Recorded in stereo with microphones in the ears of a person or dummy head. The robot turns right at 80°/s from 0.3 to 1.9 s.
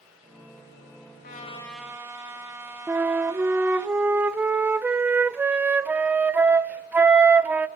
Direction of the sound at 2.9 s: 10° right (ahead or behind).